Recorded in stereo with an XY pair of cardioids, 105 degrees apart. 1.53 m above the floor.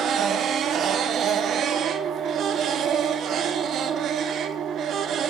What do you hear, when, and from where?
0.0 s a machine running: 65° right, 0.9 m